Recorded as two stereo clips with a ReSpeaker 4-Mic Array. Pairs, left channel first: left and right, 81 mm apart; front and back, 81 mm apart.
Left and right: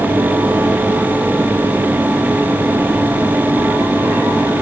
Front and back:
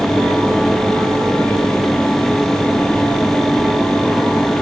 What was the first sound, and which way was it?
Only background noise.